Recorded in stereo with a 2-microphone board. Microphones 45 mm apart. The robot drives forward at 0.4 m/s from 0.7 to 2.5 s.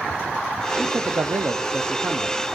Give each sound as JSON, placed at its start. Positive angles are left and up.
{"t": 0.8, "sound": "a man speaking", "side_deg": -50, "distance_m": 0.5}